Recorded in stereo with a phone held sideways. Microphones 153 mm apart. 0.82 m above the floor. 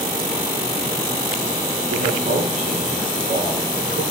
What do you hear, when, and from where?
1.9 s a man speaking: 60° right (ahead or behind), 7.5 m